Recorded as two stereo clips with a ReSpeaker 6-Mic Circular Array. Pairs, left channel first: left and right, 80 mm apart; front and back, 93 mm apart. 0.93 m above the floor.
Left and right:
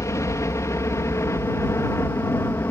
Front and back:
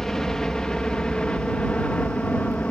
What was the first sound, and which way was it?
A helicopter, 80° left.